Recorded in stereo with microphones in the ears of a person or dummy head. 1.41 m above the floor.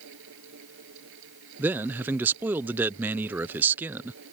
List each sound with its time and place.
0.0 s a fan: 70° right (ahead or behind)
1.6 s a man speaking: 10° right (ahead or behind)